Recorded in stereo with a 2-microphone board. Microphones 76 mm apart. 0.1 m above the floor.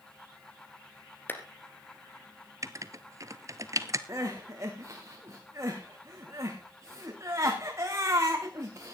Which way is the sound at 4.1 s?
40° right (ahead or behind).